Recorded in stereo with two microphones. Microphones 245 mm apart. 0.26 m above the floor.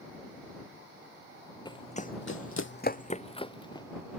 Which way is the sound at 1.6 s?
20° left (ahead or behind).